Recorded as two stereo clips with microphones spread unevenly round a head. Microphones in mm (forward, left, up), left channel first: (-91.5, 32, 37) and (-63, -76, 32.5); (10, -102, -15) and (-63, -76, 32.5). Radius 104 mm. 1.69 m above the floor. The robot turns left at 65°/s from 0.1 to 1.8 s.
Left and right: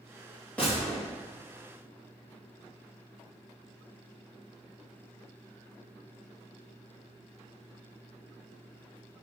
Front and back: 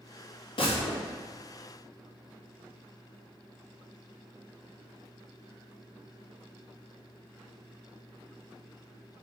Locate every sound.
0.6 s a gunshot: 20° left, 3 m; by 1.1 s 10° right, 3 m